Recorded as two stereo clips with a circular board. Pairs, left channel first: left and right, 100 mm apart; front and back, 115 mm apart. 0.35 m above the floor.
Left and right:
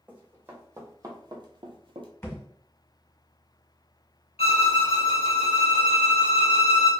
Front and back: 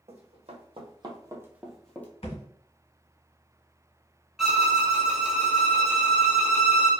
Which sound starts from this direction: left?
A violin, at 4.4 s.